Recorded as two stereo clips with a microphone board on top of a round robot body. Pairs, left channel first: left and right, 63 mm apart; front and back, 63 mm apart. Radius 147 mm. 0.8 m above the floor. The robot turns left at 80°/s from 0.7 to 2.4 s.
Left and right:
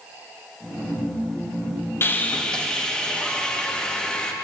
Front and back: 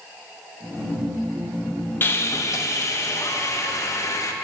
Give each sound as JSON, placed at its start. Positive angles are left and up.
{"t": 2.0, "sound": "sawing", "azimuth_deg": 50, "distance_m": 1.3}